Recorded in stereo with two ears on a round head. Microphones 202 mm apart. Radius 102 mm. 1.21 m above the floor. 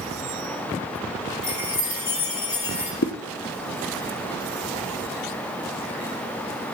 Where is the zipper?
50° left (ahead or behind), 0.9 m.